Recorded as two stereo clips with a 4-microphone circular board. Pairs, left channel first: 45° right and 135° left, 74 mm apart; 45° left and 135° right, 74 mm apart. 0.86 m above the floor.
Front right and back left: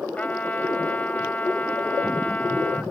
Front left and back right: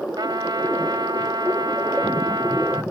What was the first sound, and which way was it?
A trumpet, 115° right.